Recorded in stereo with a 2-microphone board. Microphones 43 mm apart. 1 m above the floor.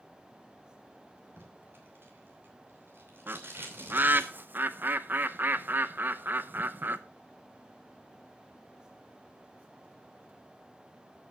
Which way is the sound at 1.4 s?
55° right (ahead or behind).